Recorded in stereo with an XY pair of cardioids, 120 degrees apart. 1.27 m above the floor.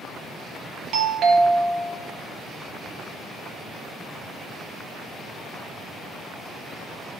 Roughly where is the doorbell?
Right.